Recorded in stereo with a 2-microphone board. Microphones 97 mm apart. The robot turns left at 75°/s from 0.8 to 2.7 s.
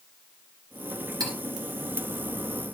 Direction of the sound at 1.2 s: 40° right (ahead or behind).